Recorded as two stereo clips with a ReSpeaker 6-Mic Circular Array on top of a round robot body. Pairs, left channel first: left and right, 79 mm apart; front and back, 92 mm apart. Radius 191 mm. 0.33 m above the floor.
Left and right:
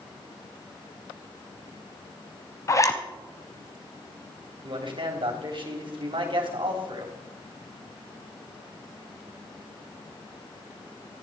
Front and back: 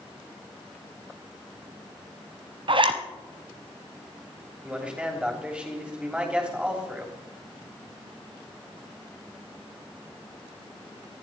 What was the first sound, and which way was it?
A zipper, 145° left.